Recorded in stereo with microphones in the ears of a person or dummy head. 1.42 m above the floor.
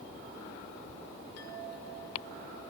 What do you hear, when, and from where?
1.4 s a chime: 75° left (ahead or behind), 5.5 m